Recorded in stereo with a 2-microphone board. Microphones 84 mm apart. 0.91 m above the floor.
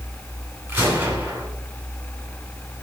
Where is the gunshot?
30° right (ahead or behind), 9 m.